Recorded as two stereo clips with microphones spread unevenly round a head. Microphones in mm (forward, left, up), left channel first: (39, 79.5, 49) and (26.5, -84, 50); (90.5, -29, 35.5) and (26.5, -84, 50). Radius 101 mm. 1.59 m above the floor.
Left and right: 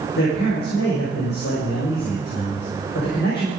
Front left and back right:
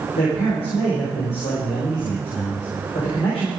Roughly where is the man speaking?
Ahead left.